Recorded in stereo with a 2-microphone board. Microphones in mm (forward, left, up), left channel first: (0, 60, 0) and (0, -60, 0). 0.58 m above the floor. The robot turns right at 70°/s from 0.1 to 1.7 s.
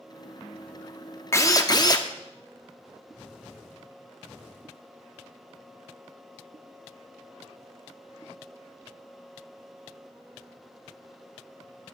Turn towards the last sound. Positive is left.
turn(degrees=35)  # may be behind; listen again after turning